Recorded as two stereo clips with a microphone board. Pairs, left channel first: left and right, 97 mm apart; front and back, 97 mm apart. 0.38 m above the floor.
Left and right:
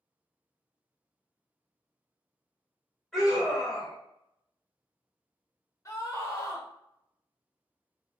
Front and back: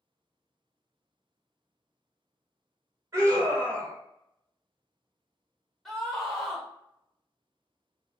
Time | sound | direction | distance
3.1 | a scream | 175° left | 1.3 m
5.8 | a scream | 85° left | 0.9 m